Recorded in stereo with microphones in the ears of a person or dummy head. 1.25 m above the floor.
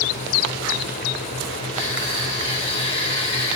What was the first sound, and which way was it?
Crushing, 35° left (ahead or behind).